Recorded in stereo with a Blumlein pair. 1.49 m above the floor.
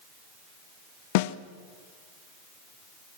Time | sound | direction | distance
1.1 | a snare drum | 50° left | 1.1 m